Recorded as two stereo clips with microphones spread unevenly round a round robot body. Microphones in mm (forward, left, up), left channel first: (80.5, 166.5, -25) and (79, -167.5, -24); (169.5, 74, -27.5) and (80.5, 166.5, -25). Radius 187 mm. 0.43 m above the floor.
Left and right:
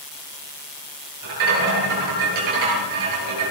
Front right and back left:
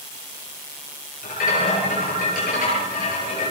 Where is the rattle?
65° right, 8 m.